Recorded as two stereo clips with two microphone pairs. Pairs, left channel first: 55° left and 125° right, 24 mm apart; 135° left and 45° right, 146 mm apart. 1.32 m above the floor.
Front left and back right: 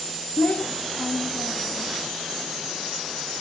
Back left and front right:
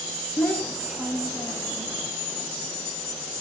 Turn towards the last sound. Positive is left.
turn(degrees=15)